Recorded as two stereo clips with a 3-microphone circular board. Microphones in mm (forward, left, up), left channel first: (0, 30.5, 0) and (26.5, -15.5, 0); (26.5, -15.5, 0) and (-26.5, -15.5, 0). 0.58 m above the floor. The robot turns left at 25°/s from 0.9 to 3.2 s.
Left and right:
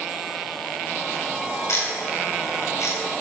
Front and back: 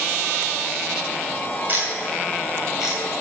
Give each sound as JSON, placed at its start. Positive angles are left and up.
{"t": 1.7, "sound": "ticking", "azimuth_deg": 130, "distance_m": 3.5}